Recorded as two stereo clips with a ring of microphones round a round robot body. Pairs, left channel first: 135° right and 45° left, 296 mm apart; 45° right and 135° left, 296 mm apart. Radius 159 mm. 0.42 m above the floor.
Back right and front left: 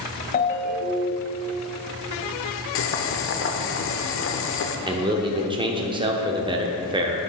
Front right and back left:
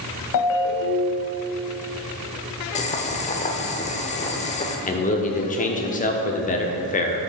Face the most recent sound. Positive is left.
turn(degrees=-15)